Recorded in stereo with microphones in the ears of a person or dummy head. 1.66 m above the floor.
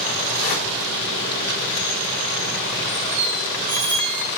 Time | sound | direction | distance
0.3 | a whoosh | 45° left (ahead or behind) | 4.5 m
3.1 | a squeak | 55° right (ahead or behind) | 4 m